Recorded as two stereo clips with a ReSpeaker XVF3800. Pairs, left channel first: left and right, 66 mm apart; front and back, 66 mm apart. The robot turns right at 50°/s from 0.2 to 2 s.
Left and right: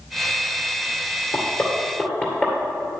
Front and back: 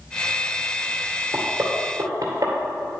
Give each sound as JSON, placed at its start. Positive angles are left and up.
{"t": 1.3, "sound": "knocking", "azimuth_deg": 120, "distance_m": 2.0}